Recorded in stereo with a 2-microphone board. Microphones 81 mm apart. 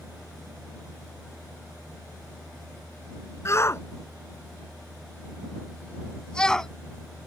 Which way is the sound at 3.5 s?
40° left (ahead or behind).